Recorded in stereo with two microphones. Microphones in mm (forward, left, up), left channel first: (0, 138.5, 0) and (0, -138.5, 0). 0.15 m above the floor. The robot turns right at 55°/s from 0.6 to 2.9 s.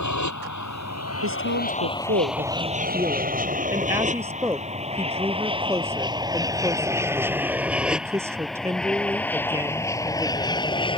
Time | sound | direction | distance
0.0 | an aircraft | 70° left (ahead or behind) | ?
1.2 | a woman speaking | 100° right | ?